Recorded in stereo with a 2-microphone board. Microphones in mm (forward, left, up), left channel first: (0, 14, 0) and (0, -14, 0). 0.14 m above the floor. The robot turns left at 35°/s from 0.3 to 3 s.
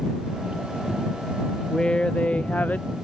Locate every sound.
1.7 s a woman speaking: 155° left; by 2.9 s 115° left